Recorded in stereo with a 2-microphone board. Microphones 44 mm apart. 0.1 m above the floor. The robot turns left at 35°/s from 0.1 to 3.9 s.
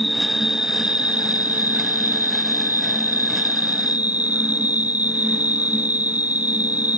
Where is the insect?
5° right; by 7.0 s 135° right.